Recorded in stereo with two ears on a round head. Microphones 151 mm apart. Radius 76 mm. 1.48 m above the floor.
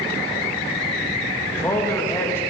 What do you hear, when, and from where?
1.5 s a man speaking: 15° left (ahead or behind), 1.9 m